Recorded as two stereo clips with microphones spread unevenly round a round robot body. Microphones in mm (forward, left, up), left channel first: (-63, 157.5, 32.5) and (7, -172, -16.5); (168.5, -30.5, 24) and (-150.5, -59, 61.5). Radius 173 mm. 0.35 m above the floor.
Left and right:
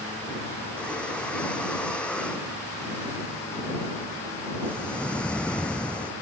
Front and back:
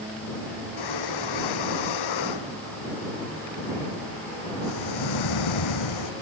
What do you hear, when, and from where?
0.8 s breathing: 15° left